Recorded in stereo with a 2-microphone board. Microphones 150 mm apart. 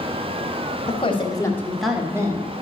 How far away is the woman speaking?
About 1.6 m.